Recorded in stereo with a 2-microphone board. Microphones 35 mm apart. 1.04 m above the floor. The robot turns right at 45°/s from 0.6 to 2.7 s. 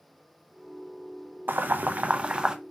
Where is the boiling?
70° right (ahead or behind), 0.5 m; by 2.5 s 20° right (ahead or behind), 0.5 m.